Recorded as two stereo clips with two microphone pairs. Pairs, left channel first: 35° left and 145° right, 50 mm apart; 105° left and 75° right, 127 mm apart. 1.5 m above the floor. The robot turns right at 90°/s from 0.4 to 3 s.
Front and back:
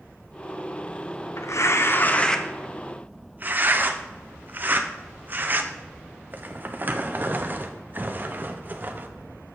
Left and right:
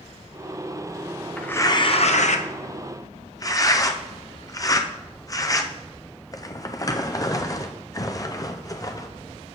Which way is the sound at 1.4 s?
20° left.